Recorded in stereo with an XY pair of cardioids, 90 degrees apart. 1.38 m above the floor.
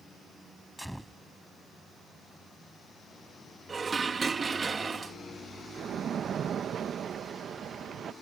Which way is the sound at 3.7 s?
40° right.